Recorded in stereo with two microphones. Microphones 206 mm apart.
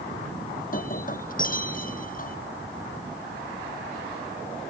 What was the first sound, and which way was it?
Breaking glass, 45° left (ahead or behind).